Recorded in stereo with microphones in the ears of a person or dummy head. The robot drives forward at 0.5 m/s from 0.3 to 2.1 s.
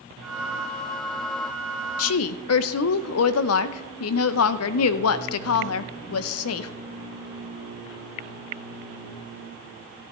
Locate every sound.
2.0 s a woman speaking: 80° left, 0.5 m; by 6.7 s 85° left, 0.5 m